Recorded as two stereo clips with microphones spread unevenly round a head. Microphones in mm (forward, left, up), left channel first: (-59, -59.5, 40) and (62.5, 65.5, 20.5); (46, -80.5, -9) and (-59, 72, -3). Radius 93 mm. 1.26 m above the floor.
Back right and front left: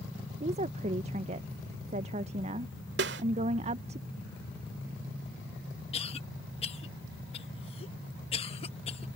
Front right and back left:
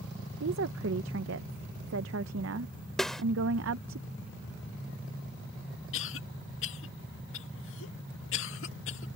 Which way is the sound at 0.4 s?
100° left.